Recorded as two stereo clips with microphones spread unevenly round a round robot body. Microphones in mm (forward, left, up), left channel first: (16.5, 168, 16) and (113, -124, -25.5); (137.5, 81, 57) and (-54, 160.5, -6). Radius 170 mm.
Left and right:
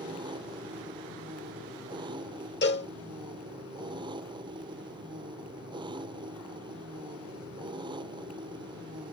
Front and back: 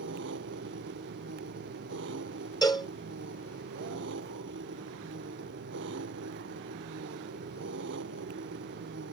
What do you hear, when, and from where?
0.0 s an engine running: 150° right
2.6 s a cowbell: 50° left